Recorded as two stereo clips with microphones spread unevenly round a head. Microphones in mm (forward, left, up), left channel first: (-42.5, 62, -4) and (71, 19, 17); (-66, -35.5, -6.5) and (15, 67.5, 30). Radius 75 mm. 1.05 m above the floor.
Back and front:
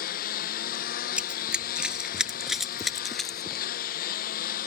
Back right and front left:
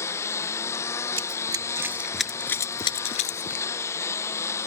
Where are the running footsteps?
50° left; by 3.6 s 105° right.